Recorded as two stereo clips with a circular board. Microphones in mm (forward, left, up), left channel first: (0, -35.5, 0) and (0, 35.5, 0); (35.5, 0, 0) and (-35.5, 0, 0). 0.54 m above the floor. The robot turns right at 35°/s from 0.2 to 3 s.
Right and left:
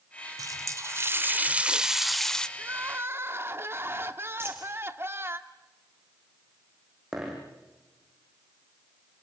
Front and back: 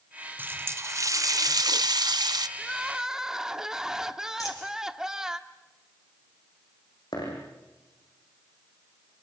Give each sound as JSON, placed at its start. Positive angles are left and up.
{"t": 0.4, "sound": "a running tap", "azimuth_deg": 120, "distance_m": 0.9}
{"t": 2.6, "sound": "crying", "azimuth_deg": 85, "distance_m": 1.3}
{"t": 4.4, "sound": "a dropped coin", "azimuth_deg": 35, "distance_m": 5.5}
{"t": 7.1, "sound": "a dropped coin", "azimuth_deg": 5, "distance_m": 7.0}